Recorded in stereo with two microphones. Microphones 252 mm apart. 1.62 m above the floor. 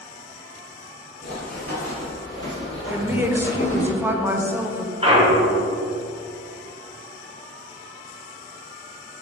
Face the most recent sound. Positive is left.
turn(degrees=-25)  # may be behind; listen again after turning